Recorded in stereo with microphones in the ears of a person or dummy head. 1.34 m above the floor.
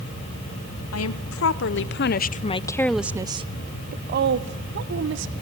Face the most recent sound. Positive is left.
turn(degrees=-65)  # may be behind; listen again after turning